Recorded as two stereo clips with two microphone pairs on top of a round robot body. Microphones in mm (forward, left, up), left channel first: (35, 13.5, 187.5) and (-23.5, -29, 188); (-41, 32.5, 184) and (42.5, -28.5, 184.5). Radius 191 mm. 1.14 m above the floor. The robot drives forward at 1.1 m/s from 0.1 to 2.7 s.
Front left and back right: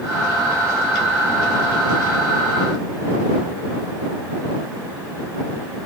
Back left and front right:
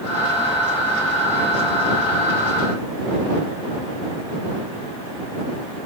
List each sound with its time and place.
Only background noise.